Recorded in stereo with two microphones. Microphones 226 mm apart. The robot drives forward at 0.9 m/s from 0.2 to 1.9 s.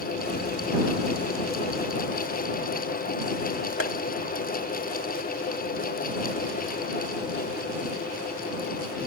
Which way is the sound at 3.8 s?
70° left (ahead or behind).